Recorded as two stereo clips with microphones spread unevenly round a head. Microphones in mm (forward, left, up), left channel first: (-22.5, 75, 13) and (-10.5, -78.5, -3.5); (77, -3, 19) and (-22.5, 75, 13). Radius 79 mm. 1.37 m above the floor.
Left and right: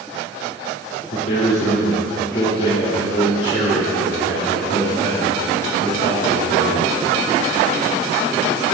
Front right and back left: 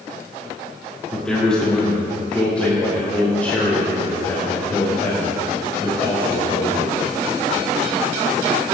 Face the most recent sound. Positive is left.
turn(degrees=35)